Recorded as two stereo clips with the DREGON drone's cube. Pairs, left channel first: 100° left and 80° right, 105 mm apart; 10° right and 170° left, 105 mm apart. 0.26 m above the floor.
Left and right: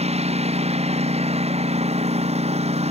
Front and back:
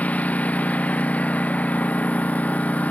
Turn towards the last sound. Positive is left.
turn(degrees=-85)